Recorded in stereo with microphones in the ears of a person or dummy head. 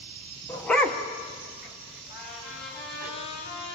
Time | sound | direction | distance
0.5 | a dog barking | 10° left (ahead or behind) | 0.9 m
2.1 | a trumpet | 60° left (ahead or behind) | 8 m